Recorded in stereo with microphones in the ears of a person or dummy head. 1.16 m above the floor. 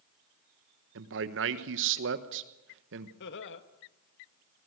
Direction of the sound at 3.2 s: 60° left (ahead or behind).